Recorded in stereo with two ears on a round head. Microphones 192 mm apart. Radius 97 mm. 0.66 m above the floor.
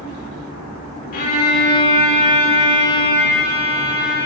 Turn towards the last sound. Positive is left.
turn(degrees=45)  # may be behind; listen again after turning